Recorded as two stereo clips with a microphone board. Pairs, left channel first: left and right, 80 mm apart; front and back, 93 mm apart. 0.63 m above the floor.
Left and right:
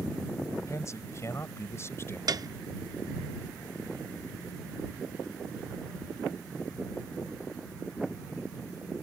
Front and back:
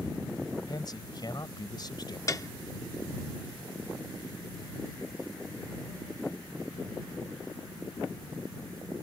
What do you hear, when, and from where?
0.7 s a man speaking: 40° left; by 2.2 s 35° left
2.3 s a piano: 50° right